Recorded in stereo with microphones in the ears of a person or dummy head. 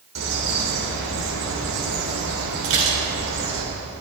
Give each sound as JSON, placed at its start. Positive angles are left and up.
{"t": 0.1, "sound": "a bird", "side_deg": -75, "distance_m": 3.5}
{"t": 2.6, "sound": "dishes clattering", "side_deg": -70, "distance_m": 4.0}